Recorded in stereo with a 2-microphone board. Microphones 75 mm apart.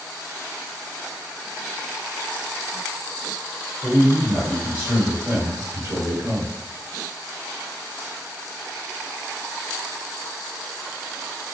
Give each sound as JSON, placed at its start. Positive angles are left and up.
{"t": 3.8, "sound": "a man speaking", "side_deg": 5, "distance_m": 1.5}